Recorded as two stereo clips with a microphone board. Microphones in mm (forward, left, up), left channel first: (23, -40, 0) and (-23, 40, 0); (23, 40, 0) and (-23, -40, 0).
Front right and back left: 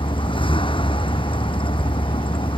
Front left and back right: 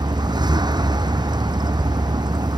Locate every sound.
0.0 s a vehicle: 80° right